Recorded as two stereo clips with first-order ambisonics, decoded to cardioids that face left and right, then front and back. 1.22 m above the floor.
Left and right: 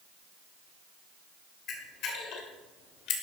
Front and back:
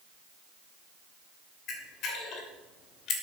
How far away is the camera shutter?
About 2.5 m.